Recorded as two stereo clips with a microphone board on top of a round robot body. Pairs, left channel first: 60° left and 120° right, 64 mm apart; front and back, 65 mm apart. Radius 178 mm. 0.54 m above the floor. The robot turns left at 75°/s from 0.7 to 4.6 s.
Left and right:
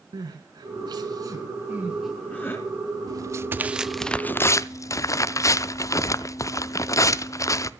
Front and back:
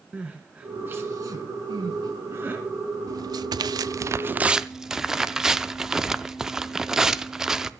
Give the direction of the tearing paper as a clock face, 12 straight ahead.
5 o'clock.